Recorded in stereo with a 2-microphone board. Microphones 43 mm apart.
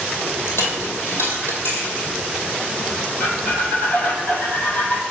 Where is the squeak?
55° left (ahead or behind), 1.8 m.